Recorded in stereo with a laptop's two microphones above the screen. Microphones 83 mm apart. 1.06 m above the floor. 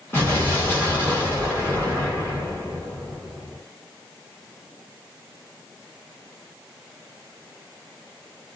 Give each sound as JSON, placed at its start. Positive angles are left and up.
{"t": 0.1, "sound": "an explosion", "side_deg": 30, "distance_m": 1.4}